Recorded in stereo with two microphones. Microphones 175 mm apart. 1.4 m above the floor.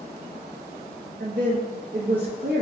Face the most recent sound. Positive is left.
turn(degrees=-70)  # may be behind; listen again after turning